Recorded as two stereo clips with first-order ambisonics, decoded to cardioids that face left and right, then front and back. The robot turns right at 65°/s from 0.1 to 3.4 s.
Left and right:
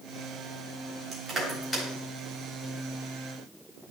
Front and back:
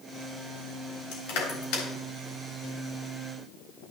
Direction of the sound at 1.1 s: 30° right.